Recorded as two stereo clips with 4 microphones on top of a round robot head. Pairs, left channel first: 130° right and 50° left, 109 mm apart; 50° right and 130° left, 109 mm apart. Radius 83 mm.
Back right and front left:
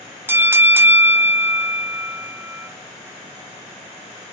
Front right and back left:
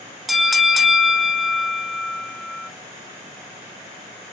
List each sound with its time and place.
0.3 s a bell: 40° left, 0.8 m